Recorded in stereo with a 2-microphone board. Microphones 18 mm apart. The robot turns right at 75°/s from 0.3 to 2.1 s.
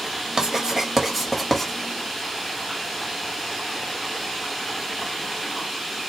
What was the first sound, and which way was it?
Writing, 40° right (ahead or behind).